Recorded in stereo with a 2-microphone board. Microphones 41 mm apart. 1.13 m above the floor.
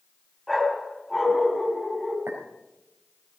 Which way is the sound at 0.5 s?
5° left (ahead or behind).